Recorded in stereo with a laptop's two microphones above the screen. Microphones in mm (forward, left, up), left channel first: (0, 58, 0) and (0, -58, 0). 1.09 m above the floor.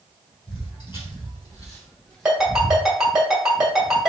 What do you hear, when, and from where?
0.5 s footsteps: 55° left (ahead or behind), 1.8 m; by 2.8 s 20° right (ahead or behind), 1.4 m
2.2 s a ringtone: 5° right (ahead or behind), 1.5 m